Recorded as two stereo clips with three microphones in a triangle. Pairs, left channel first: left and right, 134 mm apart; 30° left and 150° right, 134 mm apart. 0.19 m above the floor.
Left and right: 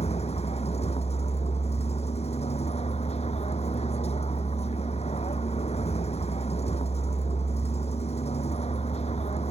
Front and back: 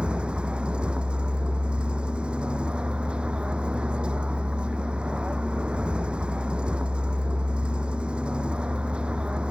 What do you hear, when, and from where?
0.0 s a vehicle: 130° left